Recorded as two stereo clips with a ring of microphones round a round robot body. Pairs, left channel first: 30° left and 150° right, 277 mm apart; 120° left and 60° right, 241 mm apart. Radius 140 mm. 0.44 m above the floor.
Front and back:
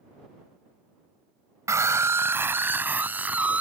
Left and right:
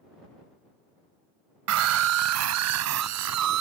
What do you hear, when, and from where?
1.7 s a scream: 70° right; by 3.6 s 65° right